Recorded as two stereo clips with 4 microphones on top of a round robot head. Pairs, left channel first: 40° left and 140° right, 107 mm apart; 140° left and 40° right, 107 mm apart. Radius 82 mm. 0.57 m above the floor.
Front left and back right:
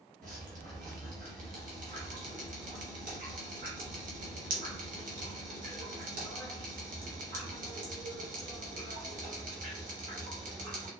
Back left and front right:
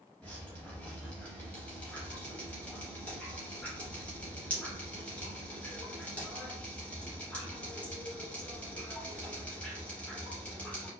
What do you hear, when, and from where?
0.2 s dripping: 140° right, 0.7 m